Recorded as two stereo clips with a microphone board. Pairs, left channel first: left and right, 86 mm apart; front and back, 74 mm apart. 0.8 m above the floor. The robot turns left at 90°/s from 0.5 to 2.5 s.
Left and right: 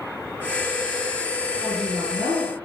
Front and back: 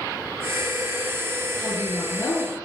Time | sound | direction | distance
1.6 | a woman speaking | 5° left | 8 m